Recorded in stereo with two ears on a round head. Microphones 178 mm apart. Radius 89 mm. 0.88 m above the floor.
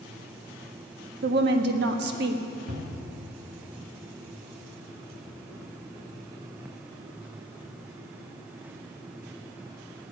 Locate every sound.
1.2 s a woman speaking: 55° right (ahead or behind), 1.4 m
2.7 s a cupboard door: 45° right (ahead or behind), 2 m